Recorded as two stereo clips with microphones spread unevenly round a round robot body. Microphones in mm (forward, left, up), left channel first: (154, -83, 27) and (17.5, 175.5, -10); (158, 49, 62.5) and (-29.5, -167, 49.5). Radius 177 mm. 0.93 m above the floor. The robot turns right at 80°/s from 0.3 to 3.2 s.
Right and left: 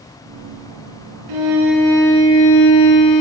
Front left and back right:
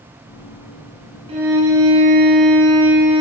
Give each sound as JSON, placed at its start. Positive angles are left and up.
{"t": 1.3, "sound": "a violin", "azimuth_deg": 155, "distance_m": 4.0}